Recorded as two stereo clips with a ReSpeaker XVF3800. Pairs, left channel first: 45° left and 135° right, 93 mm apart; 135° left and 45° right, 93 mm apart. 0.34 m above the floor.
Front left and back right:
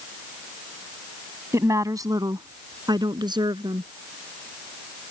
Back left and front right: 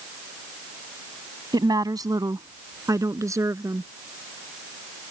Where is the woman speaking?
80° right; by 3.9 s 100° right.